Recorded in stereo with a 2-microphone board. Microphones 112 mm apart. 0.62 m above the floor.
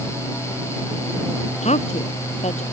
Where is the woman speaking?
80° left.